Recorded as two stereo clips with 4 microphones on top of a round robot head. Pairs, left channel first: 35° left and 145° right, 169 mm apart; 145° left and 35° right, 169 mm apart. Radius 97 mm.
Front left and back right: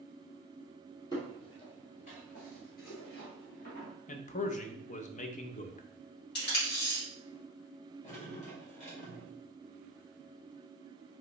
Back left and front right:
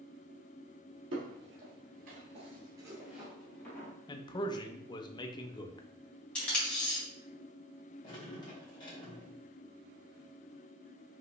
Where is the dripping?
80° left, 2 m.